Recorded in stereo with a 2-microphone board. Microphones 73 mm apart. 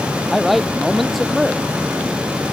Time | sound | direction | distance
0.3 | a man speaking | centre (ahead or behind) | ?